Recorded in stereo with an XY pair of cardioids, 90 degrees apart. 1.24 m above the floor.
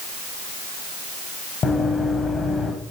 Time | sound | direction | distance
1.6 | running footsteps | 50° left | 4.5 m